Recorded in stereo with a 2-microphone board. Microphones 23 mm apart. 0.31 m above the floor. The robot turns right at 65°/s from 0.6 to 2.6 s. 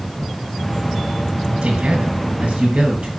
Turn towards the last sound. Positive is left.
turn(degrees=-60)